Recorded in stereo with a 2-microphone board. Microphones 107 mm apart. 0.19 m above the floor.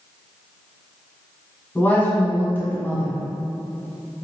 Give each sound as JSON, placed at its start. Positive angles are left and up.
{"t": 1.8, "sound": "a woman speaking", "side_deg": 20, "distance_m": 1.2}